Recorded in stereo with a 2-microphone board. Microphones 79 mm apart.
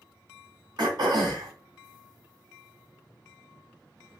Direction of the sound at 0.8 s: 60° right (ahead or behind).